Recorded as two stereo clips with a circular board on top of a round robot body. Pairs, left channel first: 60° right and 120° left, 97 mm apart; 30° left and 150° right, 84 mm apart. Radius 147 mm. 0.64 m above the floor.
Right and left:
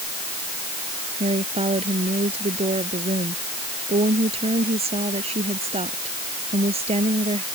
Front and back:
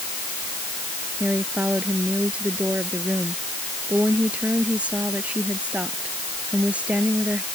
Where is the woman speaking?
135° left.